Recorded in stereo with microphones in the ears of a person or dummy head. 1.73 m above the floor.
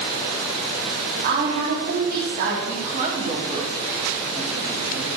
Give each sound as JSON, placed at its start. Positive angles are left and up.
{"t": 1.2, "sound": "a woman speaking", "side_deg": -55, "distance_m": 3.0}
{"t": 2.6, "sound": "a woman speaking", "side_deg": -35, "distance_m": 5.0}